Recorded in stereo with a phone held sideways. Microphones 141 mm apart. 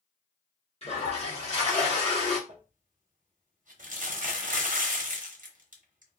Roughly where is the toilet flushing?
Left.